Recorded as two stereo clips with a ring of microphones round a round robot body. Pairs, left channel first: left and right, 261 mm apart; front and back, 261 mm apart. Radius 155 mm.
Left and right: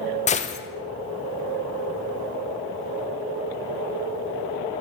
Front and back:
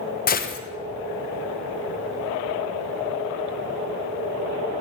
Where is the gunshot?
40° left, 0.6 m.